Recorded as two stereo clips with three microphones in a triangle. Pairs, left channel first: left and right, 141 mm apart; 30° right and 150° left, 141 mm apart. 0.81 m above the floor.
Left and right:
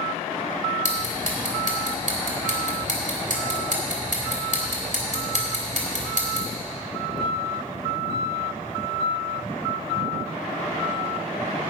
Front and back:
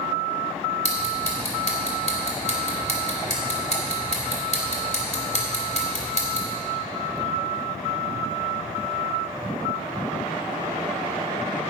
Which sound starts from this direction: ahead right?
Ticking, at 0.8 s.